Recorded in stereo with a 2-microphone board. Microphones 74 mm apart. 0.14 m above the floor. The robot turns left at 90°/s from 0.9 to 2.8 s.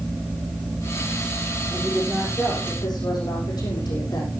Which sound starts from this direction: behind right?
A woman speaking, at 1.7 s.